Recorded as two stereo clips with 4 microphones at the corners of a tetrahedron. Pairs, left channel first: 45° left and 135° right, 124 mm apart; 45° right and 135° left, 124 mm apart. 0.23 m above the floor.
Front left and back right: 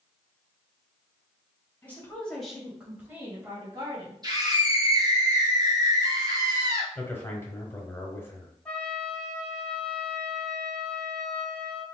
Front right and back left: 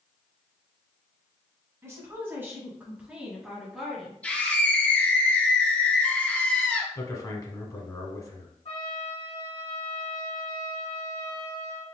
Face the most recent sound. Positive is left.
turn(degrees=-35)